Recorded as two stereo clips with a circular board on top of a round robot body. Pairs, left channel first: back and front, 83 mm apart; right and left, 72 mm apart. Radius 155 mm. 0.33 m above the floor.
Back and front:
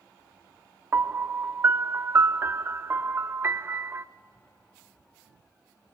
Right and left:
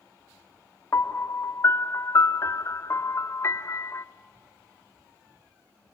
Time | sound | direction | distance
0.9 | a piano | 55° right | 0.7 m